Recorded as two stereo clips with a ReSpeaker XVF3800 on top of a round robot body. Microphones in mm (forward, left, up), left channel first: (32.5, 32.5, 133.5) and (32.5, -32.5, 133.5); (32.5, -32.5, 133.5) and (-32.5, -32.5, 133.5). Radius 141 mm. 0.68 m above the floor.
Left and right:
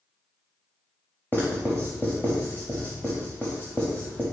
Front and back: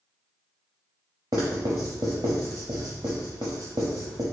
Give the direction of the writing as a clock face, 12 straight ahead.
7 o'clock.